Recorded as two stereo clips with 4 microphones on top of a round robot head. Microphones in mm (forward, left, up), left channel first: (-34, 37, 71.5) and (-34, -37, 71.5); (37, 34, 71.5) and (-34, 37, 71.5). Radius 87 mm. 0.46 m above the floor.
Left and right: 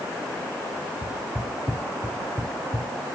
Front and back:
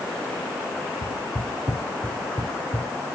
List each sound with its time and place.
1.0 s footsteps: straight ahead, 1.0 m; by 2.9 s 70° right, 1.1 m